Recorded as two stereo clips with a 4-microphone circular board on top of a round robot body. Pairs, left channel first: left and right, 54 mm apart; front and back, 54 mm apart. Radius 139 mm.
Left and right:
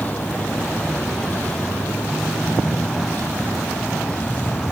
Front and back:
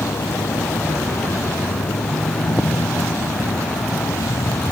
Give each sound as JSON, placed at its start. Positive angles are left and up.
{"t": 0.0, "sound": "a vehicle", "azimuth_deg": 30}